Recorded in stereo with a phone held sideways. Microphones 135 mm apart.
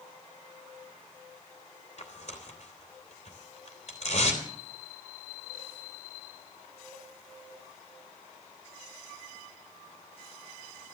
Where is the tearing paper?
55° left (ahead or behind), 3 m.